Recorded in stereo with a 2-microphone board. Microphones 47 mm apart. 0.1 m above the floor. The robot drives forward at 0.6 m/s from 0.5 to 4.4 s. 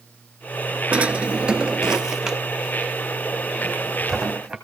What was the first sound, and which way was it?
A drawer, 30° right (ahead or behind).